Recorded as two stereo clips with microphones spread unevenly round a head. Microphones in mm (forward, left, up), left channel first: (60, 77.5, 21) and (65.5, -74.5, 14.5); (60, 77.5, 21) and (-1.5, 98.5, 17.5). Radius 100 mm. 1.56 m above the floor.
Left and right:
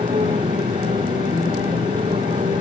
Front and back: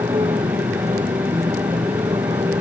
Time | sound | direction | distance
0.0 | a motorcycle | 155° right | ?